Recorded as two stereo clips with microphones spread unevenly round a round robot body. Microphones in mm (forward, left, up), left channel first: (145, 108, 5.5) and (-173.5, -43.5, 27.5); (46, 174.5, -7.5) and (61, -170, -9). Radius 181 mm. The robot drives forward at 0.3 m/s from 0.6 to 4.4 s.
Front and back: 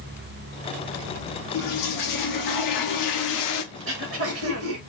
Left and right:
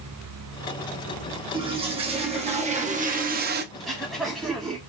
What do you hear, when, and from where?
1.5 s a toilet flushing: 10° right, 1.2 m; by 3.6 s 25° right, 0.6 m
3.7 s throat clearing: straight behind, 0.8 m